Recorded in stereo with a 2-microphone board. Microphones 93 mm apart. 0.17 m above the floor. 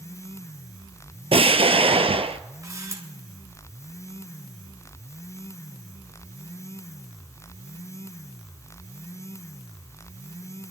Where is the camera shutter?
35° right (ahead or behind), 2.5 m.